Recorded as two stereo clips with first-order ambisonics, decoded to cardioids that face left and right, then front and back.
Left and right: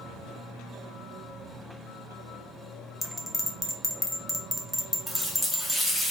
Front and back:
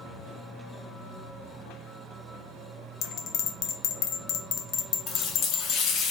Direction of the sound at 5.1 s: 5° left.